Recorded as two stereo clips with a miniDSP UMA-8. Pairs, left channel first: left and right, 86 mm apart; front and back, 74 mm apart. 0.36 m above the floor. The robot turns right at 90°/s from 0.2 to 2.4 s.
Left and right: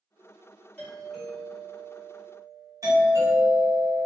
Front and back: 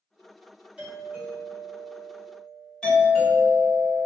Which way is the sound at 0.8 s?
145° left.